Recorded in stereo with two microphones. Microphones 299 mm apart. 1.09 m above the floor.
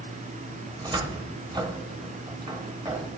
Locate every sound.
0.7 s a cupboard door: 15° right (ahead or behind), 0.7 m